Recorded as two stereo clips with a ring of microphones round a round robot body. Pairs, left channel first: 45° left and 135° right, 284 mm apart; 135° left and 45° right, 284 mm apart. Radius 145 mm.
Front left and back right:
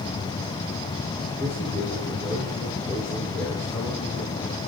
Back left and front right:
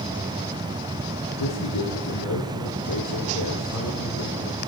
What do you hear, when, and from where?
1.4 s a man speaking: 130° left, 3.5 m